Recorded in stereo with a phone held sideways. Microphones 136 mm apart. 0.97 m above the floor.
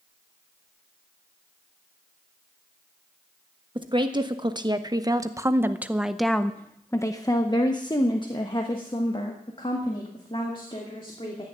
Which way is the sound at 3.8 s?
35° right (ahead or behind).